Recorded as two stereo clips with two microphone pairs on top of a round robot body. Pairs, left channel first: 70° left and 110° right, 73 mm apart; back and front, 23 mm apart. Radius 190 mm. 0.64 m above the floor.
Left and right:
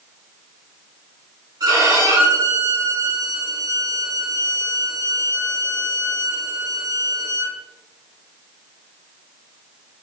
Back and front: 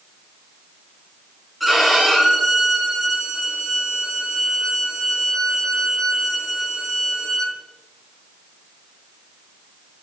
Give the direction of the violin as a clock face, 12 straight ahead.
3 o'clock.